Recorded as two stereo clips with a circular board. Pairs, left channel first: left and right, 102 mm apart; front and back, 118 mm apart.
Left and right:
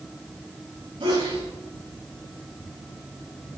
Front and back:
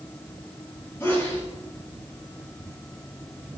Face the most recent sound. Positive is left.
turn(degrees=-70)